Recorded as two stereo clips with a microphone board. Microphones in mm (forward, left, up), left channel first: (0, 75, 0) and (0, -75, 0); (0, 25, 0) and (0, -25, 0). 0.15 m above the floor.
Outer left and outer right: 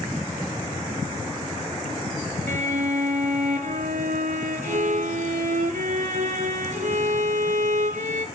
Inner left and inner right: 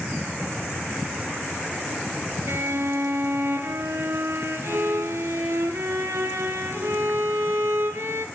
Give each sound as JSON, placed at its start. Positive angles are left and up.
{"t": 2.5, "sound": "a violin", "side_deg": -65, "distance_m": 0.6}